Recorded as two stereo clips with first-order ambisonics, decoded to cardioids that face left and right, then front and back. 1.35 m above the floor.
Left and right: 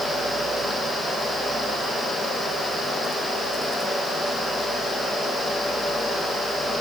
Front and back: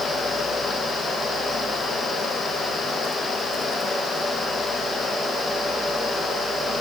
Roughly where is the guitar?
I don't hear a guitar.